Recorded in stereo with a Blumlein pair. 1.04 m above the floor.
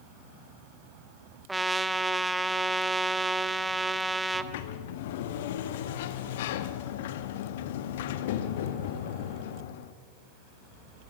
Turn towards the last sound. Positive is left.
turn(degrees=55)